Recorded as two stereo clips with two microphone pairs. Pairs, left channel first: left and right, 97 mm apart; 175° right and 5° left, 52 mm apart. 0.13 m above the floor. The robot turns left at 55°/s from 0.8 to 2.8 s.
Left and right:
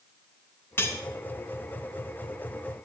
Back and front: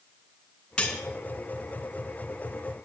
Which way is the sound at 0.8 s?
125° left.